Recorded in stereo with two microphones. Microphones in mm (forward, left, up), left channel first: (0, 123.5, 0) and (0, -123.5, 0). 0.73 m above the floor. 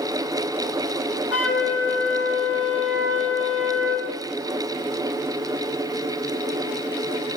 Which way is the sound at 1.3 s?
70° left (ahead or behind).